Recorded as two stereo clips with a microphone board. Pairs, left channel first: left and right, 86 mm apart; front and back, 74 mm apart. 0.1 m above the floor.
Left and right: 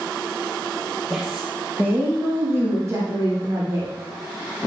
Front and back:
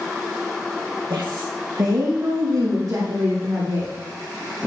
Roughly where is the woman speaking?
Behind.